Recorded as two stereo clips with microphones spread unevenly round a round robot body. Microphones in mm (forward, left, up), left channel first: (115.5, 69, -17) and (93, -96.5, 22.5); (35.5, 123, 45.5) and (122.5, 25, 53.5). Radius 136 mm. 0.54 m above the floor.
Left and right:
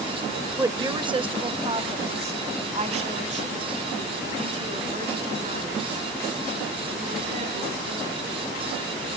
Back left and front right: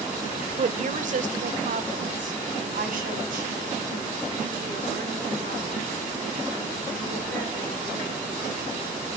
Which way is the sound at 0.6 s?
25° right.